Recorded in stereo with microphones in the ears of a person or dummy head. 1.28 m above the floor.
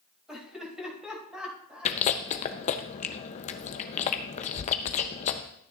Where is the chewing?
40° left (ahead or behind), 0.6 m.